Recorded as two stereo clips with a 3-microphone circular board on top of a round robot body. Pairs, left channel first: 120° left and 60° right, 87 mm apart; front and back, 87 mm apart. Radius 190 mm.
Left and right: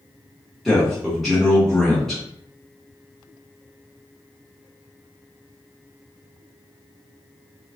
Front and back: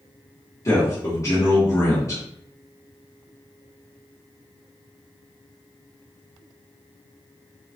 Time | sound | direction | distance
0.7 | a man speaking | 35° left | 1.5 m